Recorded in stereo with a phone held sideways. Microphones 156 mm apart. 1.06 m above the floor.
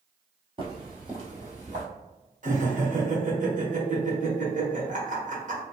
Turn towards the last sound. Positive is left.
turn(degrees=-55)  # may be behind; listen again after turning